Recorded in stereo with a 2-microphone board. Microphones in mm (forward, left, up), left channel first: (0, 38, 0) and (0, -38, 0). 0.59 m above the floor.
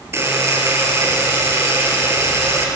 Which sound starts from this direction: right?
A buzzer, at 0.1 s.